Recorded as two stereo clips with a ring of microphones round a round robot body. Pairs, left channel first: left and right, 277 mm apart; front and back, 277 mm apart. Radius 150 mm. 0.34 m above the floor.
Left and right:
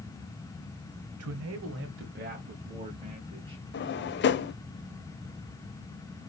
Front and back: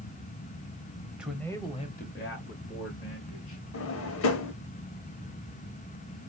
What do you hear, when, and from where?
1.2 s a man speaking: 95° right, 1.4 m; by 3.6 s 10° right, 2.5 m
3.7 s a drawer: 40° left, 0.5 m